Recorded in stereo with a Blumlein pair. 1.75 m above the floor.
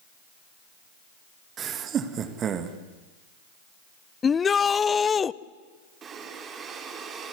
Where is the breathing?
25° right, 3 m.